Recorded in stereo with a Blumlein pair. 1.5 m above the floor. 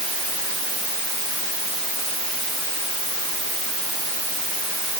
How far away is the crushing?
I don't hear crushing.